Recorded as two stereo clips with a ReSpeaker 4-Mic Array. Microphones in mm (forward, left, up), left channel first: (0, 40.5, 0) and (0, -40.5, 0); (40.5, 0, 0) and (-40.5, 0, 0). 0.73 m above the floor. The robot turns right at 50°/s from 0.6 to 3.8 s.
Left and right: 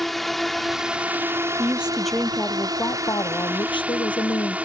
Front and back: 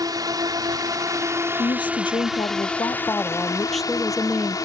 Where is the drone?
Straight behind; by 4.7 s 20° right.